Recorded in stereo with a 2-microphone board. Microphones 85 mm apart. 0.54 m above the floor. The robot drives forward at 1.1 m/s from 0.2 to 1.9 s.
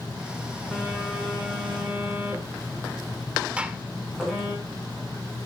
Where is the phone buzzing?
5° right (ahead or behind), 6 m.